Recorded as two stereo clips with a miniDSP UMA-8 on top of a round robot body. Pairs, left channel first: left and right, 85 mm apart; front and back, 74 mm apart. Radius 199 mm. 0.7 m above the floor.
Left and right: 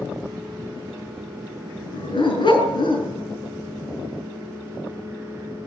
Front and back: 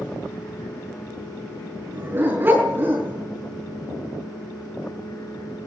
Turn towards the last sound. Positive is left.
turn(degrees=120)